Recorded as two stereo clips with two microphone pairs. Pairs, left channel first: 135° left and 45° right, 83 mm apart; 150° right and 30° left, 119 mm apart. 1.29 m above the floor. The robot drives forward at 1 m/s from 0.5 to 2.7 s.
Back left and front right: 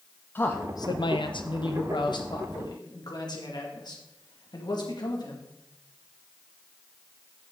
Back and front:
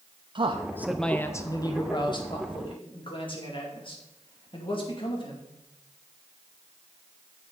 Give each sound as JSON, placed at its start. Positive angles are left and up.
{"t": 0.3, "sound": "a man speaking", "azimuth_deg": 70, "distance_m": 0.6}